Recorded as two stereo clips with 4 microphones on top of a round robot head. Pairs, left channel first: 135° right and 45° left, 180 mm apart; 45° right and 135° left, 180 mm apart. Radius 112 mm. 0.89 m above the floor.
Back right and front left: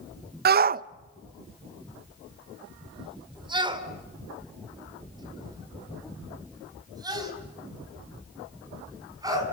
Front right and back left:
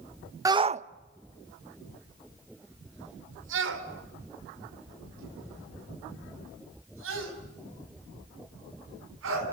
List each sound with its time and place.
0.5 s a shout: 65° left, 0.6 m; by 9.4 s 120° left, 7.5 m